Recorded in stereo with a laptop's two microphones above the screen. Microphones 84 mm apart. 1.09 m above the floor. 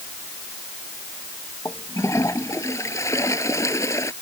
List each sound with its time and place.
1.6 s a toilet flushing: 35° left (ahead or behind)